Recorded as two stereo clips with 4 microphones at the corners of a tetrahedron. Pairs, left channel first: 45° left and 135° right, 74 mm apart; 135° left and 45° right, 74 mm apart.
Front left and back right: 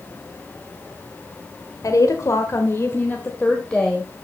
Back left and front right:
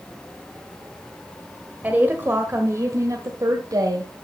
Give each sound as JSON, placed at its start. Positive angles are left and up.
{"t": 1.8, "sound": "a woman speaking", "azimuth_deg": 20, "distance_m": 1.5}